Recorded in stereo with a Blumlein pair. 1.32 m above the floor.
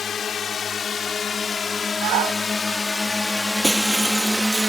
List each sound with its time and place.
0.0 s a drone: 20° left; by 4.7 s 5° right
2.0 s a shout: 40° right
3.6 s breaking glass: 5° right